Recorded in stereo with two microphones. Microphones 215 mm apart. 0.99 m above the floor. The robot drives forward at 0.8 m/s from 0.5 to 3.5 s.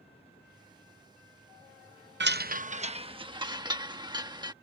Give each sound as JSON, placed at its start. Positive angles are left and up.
{"t": 2.2, "sound": "a chime", "side_deg": -55}